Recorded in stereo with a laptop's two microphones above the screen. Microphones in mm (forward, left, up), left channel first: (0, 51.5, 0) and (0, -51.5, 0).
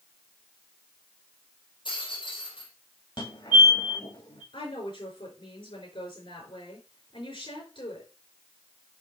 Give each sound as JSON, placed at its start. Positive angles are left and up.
{"t": 1.9, "sound": "a rattle", "side_deg": 55, "distance_m": 4.5}
{"t": 3.2, "sound": "a fire alarm", "side_deg": 55, "distance_m": 3.0}
{"t": 4.5, "sound": "a woman speaking", "side_deg": 55, "distance_m": 5.0}